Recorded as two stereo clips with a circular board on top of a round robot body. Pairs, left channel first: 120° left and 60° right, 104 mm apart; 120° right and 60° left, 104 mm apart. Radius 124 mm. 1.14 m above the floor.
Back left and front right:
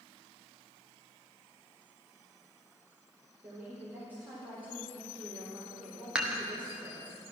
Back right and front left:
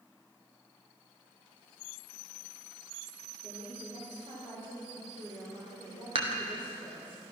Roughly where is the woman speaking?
Ahead.